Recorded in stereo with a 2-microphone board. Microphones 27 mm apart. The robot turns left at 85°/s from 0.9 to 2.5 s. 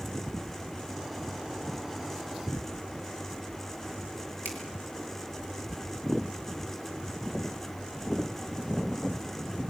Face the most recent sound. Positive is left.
turn(degrees=75)  # may be behind; listen again after turning